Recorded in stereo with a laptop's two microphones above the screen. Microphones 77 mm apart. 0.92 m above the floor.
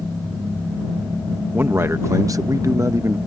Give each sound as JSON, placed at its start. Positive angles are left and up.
{"t": 1.5, "sound": "a man speaking", "side_deg": -25}